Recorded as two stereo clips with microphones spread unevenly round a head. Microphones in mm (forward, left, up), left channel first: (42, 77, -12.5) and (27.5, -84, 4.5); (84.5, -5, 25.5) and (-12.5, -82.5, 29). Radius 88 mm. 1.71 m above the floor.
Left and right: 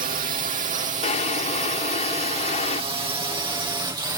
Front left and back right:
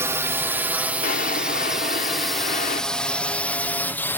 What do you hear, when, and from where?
0.0 s a drone: 80° right; by 4.2 s 30° right
1.0 s a drawer: 35° left